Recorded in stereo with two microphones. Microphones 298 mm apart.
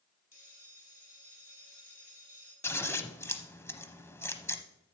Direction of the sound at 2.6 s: 10° left (ahead or behind).